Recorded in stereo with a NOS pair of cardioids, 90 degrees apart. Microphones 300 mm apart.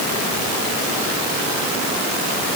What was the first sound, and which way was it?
Only background noise.